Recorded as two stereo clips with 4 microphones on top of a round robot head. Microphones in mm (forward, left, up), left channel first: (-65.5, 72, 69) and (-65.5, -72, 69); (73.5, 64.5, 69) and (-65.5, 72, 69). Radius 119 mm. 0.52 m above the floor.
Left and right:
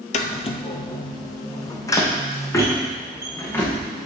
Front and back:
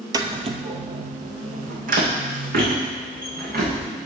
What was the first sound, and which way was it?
Footsteps, 120° left.